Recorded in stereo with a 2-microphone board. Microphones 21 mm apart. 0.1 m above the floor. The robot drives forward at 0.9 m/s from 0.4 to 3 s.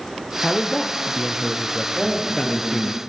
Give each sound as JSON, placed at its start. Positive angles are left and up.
{"t": 0.4, "sound": "a man speaking", "side_deg": 10, "distance_m": 3.0}
{"t": 1.9, "sound": "a man speaking", "side_deg": -45, "distance_m": 7.0}